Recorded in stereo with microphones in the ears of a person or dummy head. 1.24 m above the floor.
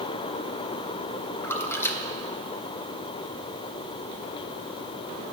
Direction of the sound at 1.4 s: 15° left (ahead or behind).